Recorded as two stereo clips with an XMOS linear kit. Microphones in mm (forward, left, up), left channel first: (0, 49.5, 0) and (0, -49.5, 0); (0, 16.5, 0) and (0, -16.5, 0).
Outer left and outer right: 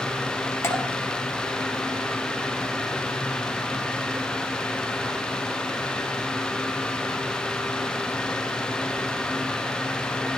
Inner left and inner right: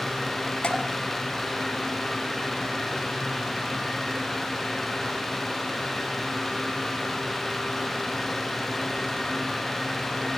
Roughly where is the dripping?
Left.